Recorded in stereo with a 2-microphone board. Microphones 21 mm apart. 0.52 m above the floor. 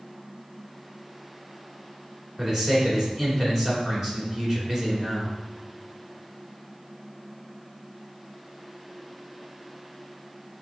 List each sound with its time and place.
2.4 s a man speaking: 20° right (ahead or behind), 2.5 m